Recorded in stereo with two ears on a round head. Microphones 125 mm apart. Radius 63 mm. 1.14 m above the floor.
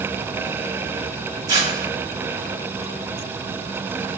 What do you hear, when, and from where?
1.5 s tearing paper: 25° right (ahead or behind), 1.5 m